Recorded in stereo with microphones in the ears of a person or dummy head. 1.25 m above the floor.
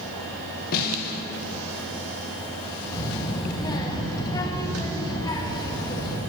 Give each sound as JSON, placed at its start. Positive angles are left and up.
{"t": 0.7, "sound": "a snare drum", "side_deg": 50, "distance_m": 1.0}
{"t": 2.9, "sound": "a child speaking", "side_deg": 20, "distance_m": 1.1}